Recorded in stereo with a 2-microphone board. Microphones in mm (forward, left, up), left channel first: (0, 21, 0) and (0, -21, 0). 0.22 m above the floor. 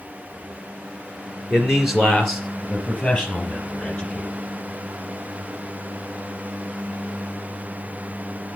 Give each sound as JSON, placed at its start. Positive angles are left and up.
{"t": 1.5, "sound": "a man speaking", "side_deg": -10, "distance_m": 3.5}